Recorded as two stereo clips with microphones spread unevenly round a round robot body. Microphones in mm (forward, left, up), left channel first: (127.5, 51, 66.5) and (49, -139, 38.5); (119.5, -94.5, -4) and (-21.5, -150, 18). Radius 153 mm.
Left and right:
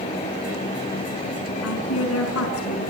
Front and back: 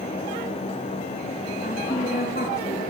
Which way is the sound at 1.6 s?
85° left.